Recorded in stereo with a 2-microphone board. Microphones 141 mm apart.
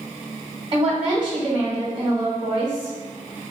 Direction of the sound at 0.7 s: 40° right (ahead or behind).